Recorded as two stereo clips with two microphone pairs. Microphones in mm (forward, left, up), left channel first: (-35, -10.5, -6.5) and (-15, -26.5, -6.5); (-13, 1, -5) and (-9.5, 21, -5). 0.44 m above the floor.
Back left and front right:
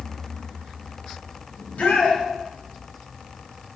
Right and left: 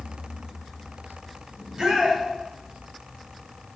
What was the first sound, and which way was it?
A shout, 135° left.